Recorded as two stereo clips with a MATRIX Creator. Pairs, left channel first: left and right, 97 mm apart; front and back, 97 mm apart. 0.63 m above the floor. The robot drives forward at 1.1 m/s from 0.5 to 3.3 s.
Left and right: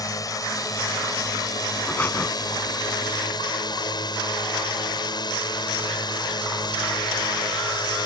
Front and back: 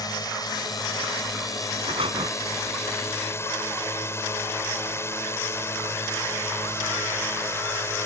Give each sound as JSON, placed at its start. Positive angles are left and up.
{"t": 0.0, "sound": "a drone", "azimuth_deg": 40}
{"t": 1.9, "sound": "breathing", "azimuth_deg": 160}